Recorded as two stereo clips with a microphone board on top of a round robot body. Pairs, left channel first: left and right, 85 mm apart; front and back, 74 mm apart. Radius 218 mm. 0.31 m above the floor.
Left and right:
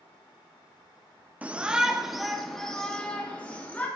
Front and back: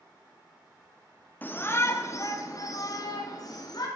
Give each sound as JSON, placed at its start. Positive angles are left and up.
{"t": 1.4, "sound": "a shout", "azimuth_deg": -35, "distance_m": 1.0}